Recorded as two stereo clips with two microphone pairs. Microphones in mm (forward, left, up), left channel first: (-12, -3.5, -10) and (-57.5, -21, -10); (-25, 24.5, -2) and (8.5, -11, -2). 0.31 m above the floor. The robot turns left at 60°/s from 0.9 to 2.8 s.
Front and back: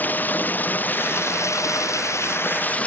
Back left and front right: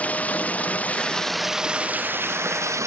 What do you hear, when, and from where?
0.0 s running water: 75° left; by 2.9 s 40° right